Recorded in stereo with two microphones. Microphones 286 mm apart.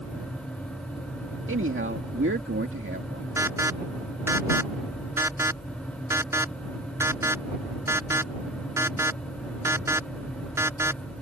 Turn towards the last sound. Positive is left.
turn(degrees=-10)  # may be behind; listen again after turning